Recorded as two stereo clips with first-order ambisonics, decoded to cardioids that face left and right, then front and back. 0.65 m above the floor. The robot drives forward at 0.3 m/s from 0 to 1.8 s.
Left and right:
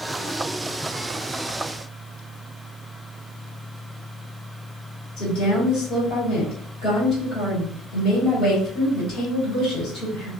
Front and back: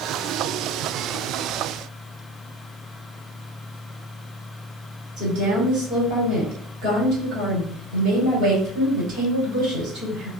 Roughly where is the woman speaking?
Behind left.